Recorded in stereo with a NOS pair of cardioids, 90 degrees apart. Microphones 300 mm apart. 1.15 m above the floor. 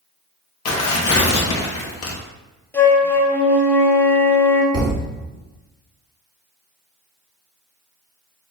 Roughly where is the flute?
Ahead.